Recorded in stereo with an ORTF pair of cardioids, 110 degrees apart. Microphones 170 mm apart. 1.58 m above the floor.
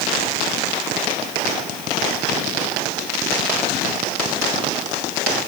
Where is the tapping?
No tapping in this recording.